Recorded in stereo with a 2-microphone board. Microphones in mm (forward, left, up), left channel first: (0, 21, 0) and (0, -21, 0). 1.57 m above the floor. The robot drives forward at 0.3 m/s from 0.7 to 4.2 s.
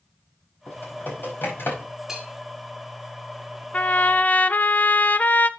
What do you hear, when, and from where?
0.7 s typing on a keyboard: 55° left (ahead or behind), 5 m; by 1.9 s 60° left (ahead or behind), 5 m
2.1 s a bell: 15° right (ahead or behind), 2.0 m
3.7 s a trumpet: 35° left (ahead or behind), 0.5 m; by 5.5 s 45° left (ahead or behind), 0.5 m